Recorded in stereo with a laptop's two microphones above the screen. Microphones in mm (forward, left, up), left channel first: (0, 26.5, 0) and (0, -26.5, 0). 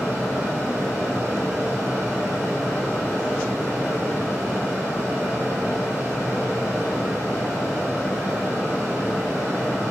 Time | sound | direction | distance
0.0 | a fan | 65° right (ahead or behind) | 3 m